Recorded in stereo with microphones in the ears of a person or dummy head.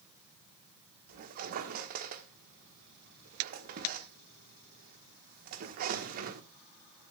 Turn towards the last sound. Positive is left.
turn(degrees=-50)  # may be behind; listen again after turning